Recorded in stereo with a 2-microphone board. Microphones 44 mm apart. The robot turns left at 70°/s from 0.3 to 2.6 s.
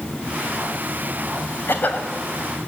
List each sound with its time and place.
1.7 s a cough: 50° left (ahead or behind), 2.5 m; by 2.1 s 30° left (ahead or behind), 2.5 m